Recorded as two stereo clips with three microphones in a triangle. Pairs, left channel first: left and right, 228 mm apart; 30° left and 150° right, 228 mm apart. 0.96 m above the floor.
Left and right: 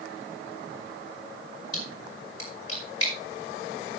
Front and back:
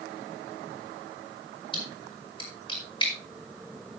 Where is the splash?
100° left, 5 m.